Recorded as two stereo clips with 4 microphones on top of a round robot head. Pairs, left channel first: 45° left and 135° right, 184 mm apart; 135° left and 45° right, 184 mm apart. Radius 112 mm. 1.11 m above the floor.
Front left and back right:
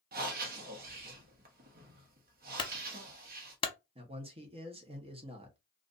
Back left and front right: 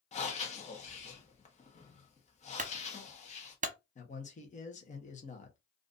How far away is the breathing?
About 1.1 m.